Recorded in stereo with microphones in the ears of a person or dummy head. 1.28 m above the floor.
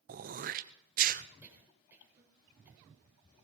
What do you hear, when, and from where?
0.1 s throat clearing: 40° right (ahead or behind), 0.5 m
1.4 s a cough: 15° right (ahead or behind), 4.5 m